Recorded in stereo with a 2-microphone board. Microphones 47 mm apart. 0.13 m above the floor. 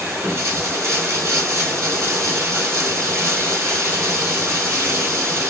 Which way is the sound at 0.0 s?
70° right (ahead or behind).